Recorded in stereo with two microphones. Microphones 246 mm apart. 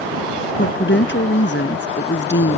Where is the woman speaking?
50° left (ahead or behind).